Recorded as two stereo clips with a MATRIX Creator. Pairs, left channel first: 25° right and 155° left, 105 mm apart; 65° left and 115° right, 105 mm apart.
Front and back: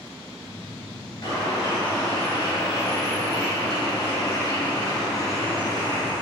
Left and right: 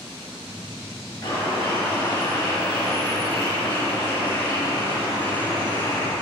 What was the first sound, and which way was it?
A bird, 30° left.